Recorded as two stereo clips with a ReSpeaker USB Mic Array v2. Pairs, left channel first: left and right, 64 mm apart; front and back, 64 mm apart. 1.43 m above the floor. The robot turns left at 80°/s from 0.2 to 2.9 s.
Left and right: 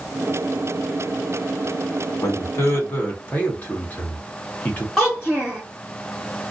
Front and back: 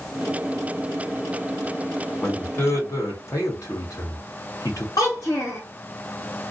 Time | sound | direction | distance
2.2 | a man speaking | 85° left | 1.3 m
5.0 | a child speaking | 5° left | 1.1 m